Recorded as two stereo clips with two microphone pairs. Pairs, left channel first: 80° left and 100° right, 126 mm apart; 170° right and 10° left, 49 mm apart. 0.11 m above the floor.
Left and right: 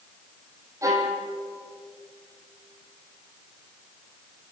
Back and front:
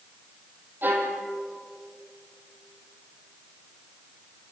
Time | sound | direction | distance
0.8 | a violin | 35° right | 3.5 m